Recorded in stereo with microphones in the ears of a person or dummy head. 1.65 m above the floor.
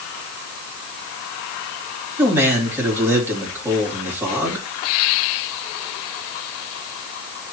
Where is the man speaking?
15° right (ahead or behind), 3 m.